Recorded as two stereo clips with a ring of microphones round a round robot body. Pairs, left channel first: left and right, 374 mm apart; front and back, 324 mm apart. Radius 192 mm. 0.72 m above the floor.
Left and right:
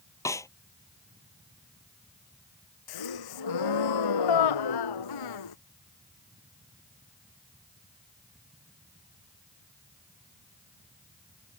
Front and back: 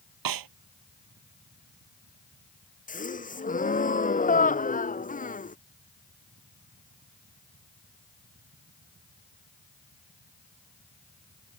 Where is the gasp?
65° left.